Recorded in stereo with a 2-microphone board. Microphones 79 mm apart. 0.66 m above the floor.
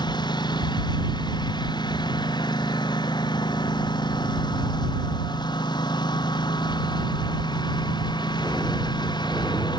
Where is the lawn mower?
70° left (ahead or behind).